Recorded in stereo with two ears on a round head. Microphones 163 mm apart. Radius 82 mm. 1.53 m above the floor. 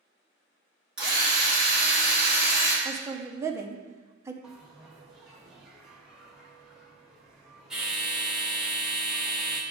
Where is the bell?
5° right (ahead or behind), 1.0 m.